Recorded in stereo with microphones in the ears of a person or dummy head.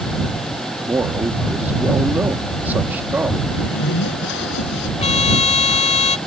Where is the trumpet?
35° left (ahead or behind).